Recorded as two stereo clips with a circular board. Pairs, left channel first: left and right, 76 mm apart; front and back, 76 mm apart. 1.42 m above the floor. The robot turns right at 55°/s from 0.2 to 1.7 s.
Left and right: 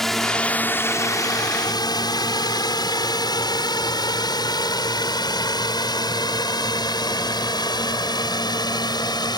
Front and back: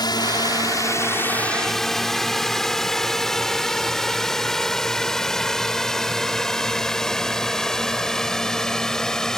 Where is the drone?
5° left; by 9.4 s 85° left.